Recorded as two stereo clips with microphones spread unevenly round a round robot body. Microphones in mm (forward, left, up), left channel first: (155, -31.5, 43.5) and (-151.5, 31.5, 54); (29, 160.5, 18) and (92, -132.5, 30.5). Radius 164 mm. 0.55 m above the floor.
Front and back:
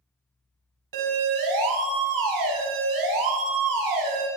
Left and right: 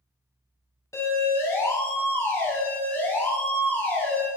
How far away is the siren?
About 6.5 m.